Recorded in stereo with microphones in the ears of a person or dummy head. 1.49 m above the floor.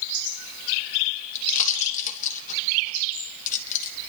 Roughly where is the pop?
Left.